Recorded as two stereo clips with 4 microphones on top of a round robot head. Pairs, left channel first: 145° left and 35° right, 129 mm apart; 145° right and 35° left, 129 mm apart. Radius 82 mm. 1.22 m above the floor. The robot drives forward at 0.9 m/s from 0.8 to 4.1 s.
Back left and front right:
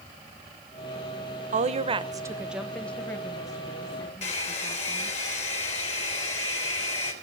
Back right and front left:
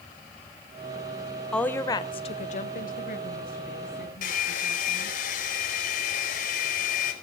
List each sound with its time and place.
1.5 s a woman speaking: 60° right, 1.0 m; by 5.2 s 155° right, 2 m
4.2 s a hair dryer: 175° right, 3.5 m